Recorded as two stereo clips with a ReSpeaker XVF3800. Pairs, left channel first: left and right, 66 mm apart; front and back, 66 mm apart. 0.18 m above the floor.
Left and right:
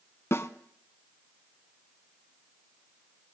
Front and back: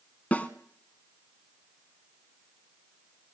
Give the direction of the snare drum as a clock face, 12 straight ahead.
10 o'clock.